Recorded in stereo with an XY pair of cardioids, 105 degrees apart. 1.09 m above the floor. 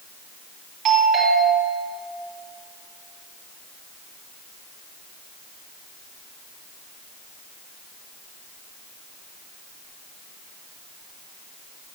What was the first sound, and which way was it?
A doorbell, 65° right.